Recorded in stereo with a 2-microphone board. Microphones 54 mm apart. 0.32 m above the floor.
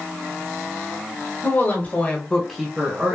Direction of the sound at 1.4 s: 35° left (ahead or behind).